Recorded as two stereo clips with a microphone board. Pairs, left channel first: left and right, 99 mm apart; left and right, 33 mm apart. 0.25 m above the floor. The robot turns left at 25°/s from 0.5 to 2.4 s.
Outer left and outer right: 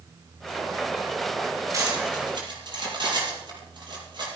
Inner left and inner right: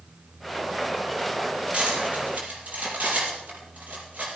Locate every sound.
1.7 s cutlery clinking: 35° right (ahead or behind), 5 m; by 4.3 s 50° right (ahead or behind), 5 m